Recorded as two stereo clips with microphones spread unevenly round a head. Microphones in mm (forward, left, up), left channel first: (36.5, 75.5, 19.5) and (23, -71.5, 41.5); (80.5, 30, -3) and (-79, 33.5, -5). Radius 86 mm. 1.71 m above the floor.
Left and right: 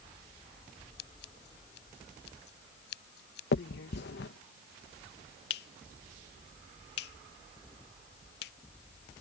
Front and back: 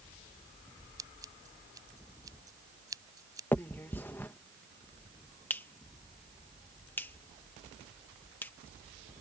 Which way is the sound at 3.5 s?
75° left.